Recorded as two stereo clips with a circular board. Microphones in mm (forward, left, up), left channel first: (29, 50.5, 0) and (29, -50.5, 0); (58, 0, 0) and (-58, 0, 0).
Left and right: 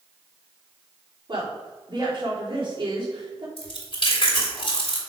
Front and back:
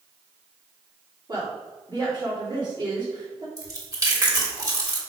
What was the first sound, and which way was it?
A woman speaking, 130° right.